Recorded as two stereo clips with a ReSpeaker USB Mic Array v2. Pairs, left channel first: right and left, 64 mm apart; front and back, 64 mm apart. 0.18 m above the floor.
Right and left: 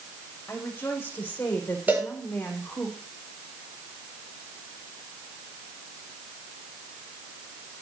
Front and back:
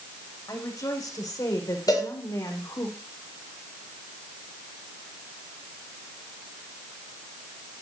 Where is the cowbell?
25° left, 9.5 m.